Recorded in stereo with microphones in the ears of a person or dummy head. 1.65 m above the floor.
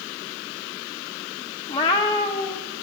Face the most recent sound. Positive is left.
turn(degrees=25)  # may be behind; listen again after turning